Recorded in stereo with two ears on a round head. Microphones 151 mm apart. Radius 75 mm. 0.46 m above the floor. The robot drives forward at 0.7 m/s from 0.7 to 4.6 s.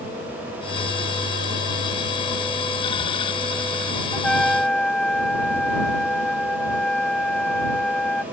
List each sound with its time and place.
4.1 s a trumpet: 5° left (ahead or behind)